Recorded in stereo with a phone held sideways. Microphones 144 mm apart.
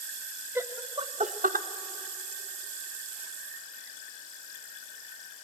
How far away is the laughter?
About 1.0 m.